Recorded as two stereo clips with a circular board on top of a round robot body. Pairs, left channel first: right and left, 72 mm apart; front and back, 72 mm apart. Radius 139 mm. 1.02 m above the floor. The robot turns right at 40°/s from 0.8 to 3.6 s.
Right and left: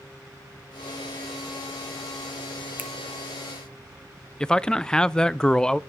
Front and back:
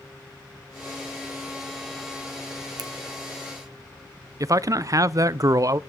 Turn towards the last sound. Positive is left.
turn(degrees=-165)